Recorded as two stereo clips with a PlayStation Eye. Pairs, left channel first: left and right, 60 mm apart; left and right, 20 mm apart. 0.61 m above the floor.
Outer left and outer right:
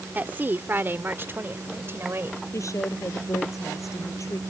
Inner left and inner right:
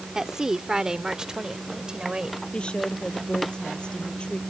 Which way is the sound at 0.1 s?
30° right (ahead or behind).